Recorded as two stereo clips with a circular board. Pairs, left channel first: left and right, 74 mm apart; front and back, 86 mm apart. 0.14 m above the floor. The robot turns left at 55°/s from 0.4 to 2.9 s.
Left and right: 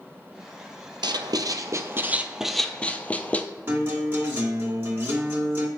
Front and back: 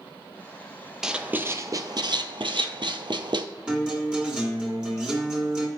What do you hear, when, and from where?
1.0 s writing: 95° right, 0.5 m; by 3.5 s 160° left, 0.5 m
3.7 s a guitar: 110° right, 1.9 m